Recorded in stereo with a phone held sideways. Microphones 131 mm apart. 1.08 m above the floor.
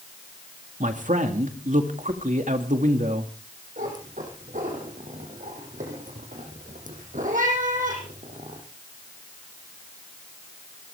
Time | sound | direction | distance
0.8 | a man speaking | 75° right (ahead or behind) | 2 m
3.8 | a cat meowing | 80° right | 5 m